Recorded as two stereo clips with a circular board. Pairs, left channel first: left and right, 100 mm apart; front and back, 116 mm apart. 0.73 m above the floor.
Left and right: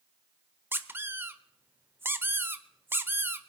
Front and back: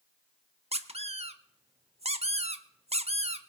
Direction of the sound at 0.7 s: 160° right.